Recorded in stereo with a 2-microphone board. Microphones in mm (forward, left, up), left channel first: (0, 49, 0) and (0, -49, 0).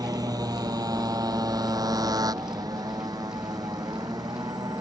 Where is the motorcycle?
40° right (ahead or behind).